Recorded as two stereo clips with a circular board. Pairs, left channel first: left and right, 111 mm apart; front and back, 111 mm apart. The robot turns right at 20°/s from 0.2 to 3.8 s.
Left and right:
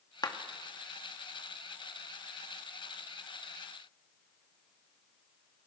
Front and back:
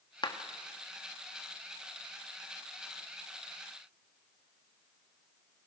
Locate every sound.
0.2 s a clap: 40° left, 2 m; by 0.4 s 45° left, 2 m